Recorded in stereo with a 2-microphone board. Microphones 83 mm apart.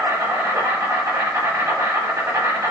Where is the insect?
35° right (ahead or behind), 1.5 m.